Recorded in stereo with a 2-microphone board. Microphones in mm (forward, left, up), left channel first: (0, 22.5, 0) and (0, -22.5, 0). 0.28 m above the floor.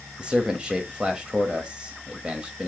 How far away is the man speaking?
About 0.9 m.